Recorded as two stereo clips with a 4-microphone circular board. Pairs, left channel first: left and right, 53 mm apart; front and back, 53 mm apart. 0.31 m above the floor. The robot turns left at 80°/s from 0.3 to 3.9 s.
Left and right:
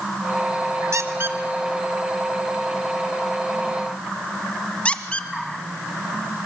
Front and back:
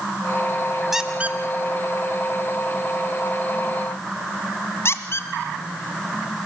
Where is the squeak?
95° right, 1.5 m; by 5.3 s 25° left, 1.5 m.